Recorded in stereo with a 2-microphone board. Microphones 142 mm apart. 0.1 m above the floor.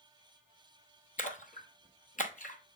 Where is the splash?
65° left (ahead or behind), 1.0 m.